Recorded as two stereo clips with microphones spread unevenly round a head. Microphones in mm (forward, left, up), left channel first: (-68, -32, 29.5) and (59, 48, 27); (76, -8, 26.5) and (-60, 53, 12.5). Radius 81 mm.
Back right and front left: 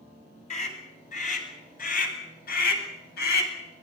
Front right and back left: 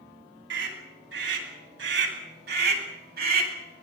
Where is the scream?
165° left, 10 m; by 3.5 s 165° right, 8.5 m.